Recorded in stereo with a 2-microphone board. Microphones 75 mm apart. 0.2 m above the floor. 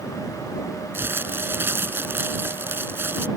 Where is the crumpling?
30° right (ahead or behind).